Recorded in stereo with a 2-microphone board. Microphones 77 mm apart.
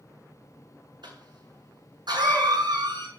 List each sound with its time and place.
1.0 s a cough: 70° right (ahead or behind), 6 m